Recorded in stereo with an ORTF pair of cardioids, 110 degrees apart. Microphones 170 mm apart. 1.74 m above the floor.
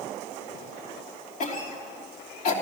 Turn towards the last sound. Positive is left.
turn(degrees=55)